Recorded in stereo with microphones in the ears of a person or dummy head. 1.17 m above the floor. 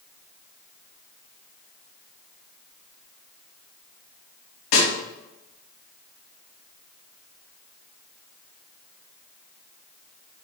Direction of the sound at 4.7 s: 80° left.